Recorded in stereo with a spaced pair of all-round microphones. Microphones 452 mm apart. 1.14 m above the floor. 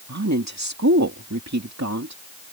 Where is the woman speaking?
35° right (ahead or behind).